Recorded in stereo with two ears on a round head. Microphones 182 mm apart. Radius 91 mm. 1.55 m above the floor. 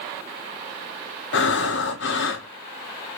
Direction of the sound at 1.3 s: 60° left (ahead or behind).